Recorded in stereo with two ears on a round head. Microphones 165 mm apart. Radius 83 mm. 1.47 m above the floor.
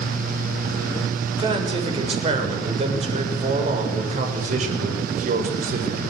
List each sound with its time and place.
1.4 s a man speaking: 25° right (ahead or behind), 7 m; by 6.0 s 45° right (ahead or behind), 7 m